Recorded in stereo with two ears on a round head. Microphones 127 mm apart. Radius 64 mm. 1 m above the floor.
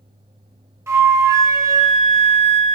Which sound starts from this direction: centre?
A flute, at 0.9 s.